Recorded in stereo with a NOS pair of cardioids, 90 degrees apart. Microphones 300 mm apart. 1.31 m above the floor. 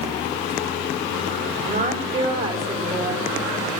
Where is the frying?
No frying in this recording.